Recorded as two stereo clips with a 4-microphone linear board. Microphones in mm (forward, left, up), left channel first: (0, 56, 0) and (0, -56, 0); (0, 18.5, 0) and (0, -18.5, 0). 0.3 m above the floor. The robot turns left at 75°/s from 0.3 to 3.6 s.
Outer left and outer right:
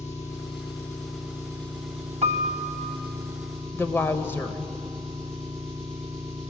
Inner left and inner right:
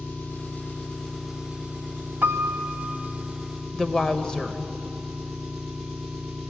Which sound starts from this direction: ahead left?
An engine running, at 0.0 s.